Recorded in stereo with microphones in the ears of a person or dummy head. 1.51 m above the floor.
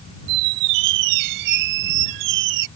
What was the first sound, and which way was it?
A squeak, 55° right (ahead or behind).